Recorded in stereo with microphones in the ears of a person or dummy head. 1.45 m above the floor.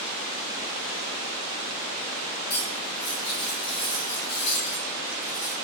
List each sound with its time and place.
2.5 s cutlery clinking: 55° left (ahead or behind), 2.5 m